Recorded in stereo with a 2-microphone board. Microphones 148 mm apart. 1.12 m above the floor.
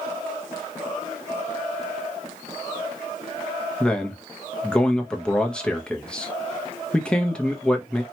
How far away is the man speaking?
About 0.7 m.